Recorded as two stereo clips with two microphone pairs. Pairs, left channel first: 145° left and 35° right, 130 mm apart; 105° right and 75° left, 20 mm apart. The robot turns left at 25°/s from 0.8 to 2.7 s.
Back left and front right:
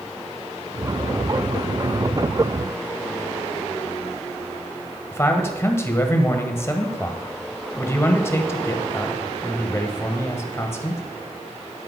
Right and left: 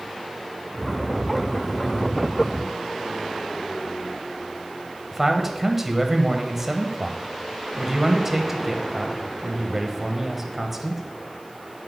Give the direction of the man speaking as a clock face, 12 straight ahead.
8 o'clock.